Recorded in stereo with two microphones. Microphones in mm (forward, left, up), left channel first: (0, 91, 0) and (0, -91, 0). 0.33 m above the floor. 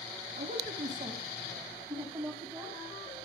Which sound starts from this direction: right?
A man speaking, at 0.4 s.